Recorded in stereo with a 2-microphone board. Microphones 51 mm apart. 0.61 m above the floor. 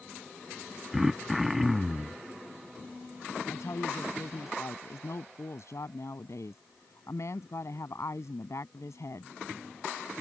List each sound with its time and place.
0.9 s throat clearing: 5° right (ahead or behind)
3.5 s a woman speaking: 70° left (ahead or behind)